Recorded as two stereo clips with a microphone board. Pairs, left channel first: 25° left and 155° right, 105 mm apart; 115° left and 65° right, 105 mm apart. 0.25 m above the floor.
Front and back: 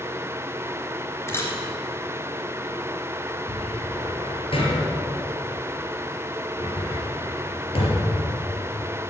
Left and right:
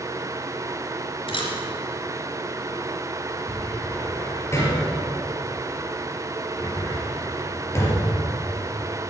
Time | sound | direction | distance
1.3 | a camera shutter | 85° left | 3 m
3.5 | a cupboard door | 50° left | 4 m